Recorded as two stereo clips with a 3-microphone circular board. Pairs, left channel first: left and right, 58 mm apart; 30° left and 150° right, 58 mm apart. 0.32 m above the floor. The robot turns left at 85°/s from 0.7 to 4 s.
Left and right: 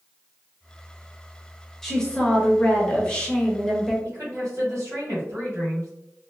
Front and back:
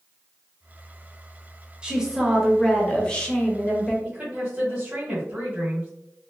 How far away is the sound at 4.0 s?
About 1.8 m.